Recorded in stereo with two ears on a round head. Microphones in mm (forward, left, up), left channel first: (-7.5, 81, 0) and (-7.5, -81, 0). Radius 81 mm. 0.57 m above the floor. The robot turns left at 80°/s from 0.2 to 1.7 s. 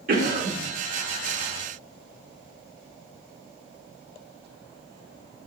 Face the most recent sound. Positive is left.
turn(degrees=155)